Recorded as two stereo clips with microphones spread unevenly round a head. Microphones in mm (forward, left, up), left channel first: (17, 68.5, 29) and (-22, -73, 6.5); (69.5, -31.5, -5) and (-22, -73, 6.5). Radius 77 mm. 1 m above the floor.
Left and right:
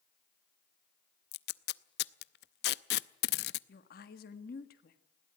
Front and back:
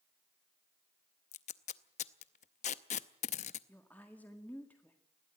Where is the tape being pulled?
60° left, 0.6 m.